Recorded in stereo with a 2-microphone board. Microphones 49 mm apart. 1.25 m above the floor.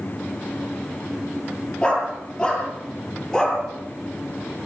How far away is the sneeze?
No sneeze in this recording.